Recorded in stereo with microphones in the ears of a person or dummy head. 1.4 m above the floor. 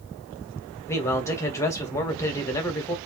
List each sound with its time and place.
0.9 s a man speaking: 15° left (ahead or behind), 1.0 m